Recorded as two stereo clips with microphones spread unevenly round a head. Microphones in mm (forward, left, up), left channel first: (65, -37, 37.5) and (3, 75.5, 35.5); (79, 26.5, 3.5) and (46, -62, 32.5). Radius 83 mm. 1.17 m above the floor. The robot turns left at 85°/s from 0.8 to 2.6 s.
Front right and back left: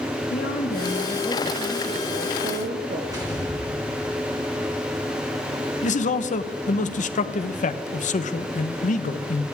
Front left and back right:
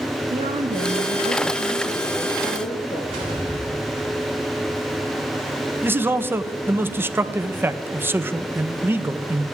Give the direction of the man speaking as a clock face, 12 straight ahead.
1 o'clock.